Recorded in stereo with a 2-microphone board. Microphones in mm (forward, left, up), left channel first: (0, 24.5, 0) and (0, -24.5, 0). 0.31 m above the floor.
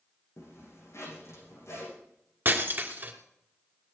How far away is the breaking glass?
About 2.5 m.